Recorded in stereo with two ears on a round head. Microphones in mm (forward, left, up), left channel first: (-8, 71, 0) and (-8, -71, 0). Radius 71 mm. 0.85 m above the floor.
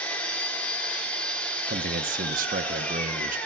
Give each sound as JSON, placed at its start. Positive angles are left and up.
{"t": 0.0, "sound": "an engine running", "side_deg": 5, "distance_m": 2.0}
{"t": 1.7, "sound": "a man speaking", "side_deg": -55, "distance_m": 0.7}